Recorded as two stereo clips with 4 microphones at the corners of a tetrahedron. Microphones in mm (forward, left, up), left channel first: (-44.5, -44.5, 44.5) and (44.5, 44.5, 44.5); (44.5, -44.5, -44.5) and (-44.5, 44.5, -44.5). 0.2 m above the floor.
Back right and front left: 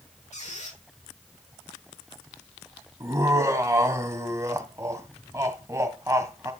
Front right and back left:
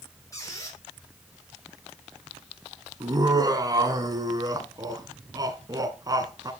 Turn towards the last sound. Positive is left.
turn(degrees=95)